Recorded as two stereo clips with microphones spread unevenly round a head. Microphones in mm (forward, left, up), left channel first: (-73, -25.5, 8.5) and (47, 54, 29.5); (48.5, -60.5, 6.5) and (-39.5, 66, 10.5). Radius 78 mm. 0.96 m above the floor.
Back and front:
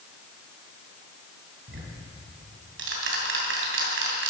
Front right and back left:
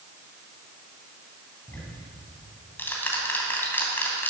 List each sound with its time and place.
1.7 s ticking: 25° left, 3 m